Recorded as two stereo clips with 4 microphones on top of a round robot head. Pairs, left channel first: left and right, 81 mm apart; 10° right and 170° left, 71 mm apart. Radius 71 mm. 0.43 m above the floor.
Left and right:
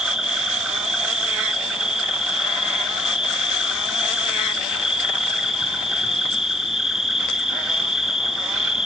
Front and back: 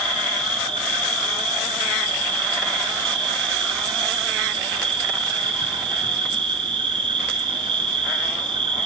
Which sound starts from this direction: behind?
An insect, at 0.0 s.